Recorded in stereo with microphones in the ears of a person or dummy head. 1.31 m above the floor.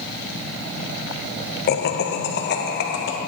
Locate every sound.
1.7 s laughter: 45° left (ahead or behind), 1.1 m; by 3.2 s 55° left (ahead or behind), 2 m